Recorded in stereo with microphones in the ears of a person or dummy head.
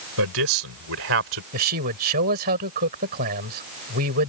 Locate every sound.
0.2 s a man speaking: 80° right; by 1.4 s 70° right (ahead or behind)
1.5 s a man speaking: 55° right (ahead or behind)